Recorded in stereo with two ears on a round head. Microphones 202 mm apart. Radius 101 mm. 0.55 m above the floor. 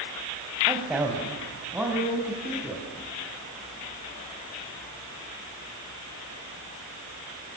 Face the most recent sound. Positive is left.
turn(degrees=-5)  # may be behind; listen again after turning